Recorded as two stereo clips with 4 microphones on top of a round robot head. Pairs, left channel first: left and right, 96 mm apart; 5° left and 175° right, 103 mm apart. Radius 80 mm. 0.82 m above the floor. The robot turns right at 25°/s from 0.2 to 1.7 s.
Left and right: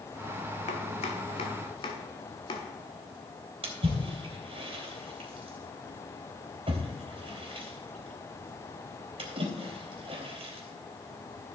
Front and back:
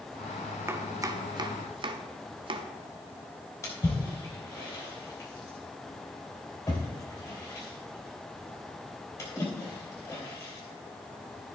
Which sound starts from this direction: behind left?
Chopping, at 0.7 s.